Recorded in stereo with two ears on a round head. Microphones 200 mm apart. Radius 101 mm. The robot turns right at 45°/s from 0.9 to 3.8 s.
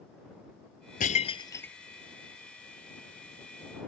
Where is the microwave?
I don't hear a microwave.